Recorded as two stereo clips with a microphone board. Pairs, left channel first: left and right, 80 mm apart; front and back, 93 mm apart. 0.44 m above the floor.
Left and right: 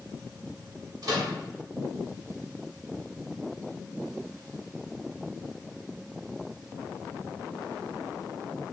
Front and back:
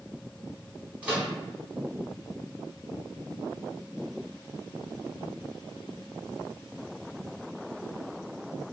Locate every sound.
1.0 s a microwave: 110° right, 1.0 m